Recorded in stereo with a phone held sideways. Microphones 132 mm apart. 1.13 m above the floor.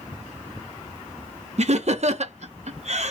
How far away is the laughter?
About 0.7 m.